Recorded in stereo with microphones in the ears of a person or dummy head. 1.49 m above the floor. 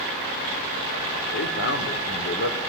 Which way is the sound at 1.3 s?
70° left (ahead or behind).